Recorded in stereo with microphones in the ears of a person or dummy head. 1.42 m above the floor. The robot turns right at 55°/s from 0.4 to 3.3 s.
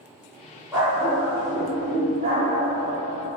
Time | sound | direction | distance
0.7 | a dog barking | 175° left | 1.1 m